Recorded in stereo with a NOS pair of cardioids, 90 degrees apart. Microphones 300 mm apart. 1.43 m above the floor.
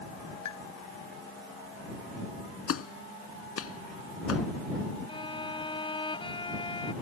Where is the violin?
15° left.